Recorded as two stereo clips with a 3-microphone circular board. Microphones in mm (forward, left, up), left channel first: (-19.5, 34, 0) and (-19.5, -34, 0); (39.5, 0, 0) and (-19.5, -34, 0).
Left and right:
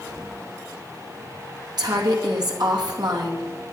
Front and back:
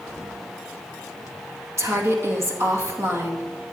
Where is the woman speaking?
100° right, 2.5 m.